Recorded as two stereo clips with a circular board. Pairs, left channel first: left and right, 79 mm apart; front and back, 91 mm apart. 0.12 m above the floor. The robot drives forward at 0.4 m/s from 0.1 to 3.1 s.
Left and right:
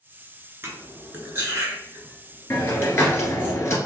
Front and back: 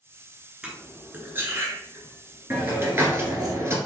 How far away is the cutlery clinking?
About 1.0 m.